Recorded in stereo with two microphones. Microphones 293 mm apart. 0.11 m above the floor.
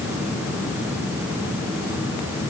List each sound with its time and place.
Only background noise.